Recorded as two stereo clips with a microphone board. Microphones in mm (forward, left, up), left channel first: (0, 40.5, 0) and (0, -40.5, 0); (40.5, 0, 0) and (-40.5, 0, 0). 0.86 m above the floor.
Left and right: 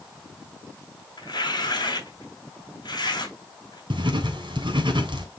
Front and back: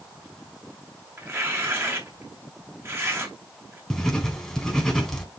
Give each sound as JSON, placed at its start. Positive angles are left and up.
{"t": 1.2, "sound": "tearing paper", "azimuth_deg": 120, "distance_m": 2.5}
{"t": 3.9, "sound": "writing", "azimuth_deg": -80, "distance_m": 2.5}